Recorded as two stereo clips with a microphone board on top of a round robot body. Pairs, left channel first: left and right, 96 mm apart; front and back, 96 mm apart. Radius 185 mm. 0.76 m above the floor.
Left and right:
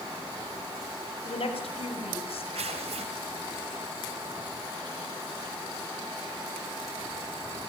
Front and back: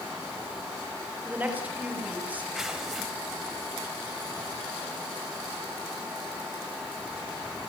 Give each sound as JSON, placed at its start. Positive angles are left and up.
{"t": 1.2, "sound": "a woman speaking", "azimuth_deg": 105, "distance_m": 7.5}
{"t": 2.5, "sound": "tearing paper", "azimuth_deg": -95, "distance_m": 0.6}